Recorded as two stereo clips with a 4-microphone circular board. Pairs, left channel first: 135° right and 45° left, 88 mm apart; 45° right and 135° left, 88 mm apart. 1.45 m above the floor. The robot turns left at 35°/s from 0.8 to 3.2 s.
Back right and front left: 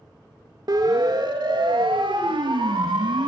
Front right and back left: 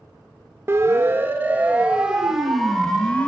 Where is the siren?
80° left, 3.5 m; by 3.3 s 30° left, 4.5 m.